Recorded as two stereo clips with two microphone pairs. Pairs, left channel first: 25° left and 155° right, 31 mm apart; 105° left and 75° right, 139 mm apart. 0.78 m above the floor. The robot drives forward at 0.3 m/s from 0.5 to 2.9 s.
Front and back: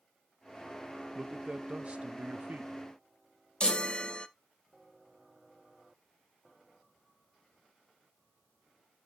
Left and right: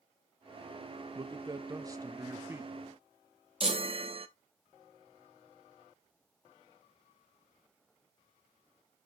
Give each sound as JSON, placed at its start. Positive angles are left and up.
{"t": 1.1, "sound": "a man speaking", "azimuth_deg": -105, "distance_m": 0.6}
{"t": 3.6, "sound": "a chime", "azimuth_deg": -30, "distance_m": 0.8}